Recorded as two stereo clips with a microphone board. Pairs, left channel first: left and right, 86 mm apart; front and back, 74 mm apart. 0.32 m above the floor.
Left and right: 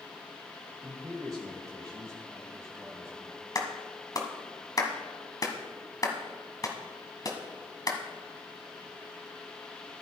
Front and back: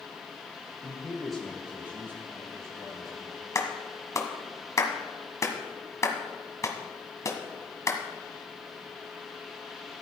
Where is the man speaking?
65° right, 1.9 m; by 3.5 s 150° right, 3 m.